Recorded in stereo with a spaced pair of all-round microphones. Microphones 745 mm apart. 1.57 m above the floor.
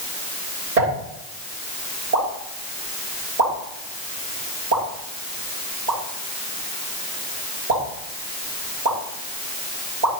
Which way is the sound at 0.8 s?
80° right.